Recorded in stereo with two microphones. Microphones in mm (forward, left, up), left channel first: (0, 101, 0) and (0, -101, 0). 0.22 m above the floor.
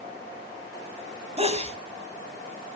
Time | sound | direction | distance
1.4 | a sneeze | 30° right (ahead or behind) | 1.4 m